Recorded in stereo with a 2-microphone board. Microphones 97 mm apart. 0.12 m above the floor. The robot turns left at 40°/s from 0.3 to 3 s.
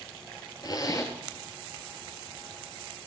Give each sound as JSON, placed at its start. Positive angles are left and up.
{"t": 0.6, "sound": "a zipper", "side_deg": 45, "distance_m": 1.2}